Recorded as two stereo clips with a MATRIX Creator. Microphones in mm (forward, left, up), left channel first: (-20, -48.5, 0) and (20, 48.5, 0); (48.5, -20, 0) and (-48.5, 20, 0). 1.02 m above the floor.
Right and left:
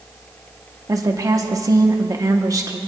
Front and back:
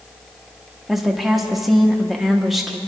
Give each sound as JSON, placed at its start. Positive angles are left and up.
{"t": 0.9, "sound": "a woman speaking", "azimuth_deg": 70, "distance_m": 0.9}